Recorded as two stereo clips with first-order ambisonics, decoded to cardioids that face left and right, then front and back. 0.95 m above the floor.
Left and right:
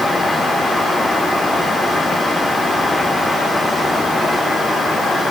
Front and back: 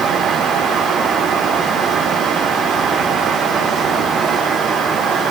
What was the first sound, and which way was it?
Only background noise.